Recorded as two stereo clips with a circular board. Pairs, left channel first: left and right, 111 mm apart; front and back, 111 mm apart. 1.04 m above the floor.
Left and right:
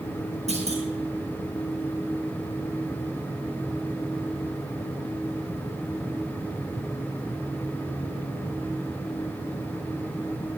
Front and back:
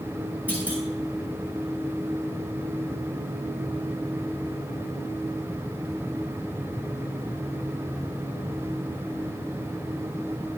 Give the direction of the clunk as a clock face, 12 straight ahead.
3 o'clock.